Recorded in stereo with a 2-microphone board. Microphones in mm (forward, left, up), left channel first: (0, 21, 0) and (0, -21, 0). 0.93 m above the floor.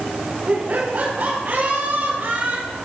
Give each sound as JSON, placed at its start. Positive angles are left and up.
{"t": 0.5, "sound": "laughter", "side_deg": -50, "distance_m": 4.0}